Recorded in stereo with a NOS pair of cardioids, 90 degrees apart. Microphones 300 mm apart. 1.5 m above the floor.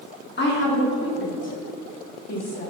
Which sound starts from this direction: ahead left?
A woman speaking, at 0.4 s.